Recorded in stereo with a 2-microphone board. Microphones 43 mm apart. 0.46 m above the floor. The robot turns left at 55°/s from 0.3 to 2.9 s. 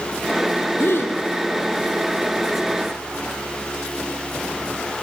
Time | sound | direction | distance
0.8 | a gasp | 65° left (ahead or behind) | 5 m